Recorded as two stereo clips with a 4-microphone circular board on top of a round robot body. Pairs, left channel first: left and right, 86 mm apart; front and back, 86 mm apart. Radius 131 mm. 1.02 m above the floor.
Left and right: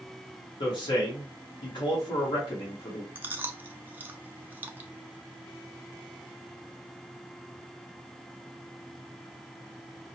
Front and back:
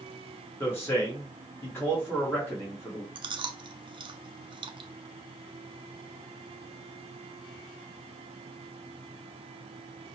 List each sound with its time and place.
0.6 s a man speaking: 65° left, 1.3 m
3.1 s chewing: 160° right, 0.5 m